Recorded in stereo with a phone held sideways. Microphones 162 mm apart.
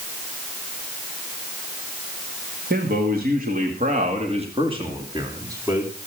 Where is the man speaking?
70° right (ahead or behind), 3 m; by 5.9 s 15° right (ahead or behind), 3.5 m.